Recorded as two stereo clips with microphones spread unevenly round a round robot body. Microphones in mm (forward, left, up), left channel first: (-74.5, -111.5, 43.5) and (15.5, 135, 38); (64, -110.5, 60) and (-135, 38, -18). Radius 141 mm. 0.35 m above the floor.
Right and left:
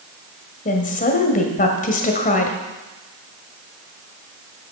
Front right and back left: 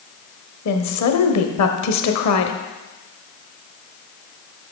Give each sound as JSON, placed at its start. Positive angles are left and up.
{"t": 0.7, "sound": "a woman speaking", "azimuth_deg": -55, "distance_m": 1.5}